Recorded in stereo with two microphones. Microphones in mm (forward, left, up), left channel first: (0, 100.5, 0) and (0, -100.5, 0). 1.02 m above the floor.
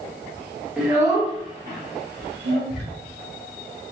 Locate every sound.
0.8 s a child speaking: 5° right (ahead or behind), 1.2 m; by 2.6 s 75° right (ahead or behind), 1.8 m
2.7 s ticking: centre (ahead or behind), 1.9 m